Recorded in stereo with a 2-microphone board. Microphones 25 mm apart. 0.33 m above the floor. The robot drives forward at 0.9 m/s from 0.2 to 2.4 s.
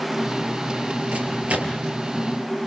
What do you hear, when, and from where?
1.1 s a microwave: 80° right, 4.5 m; by 1.9 s 75° right (ahead or behind), 5 m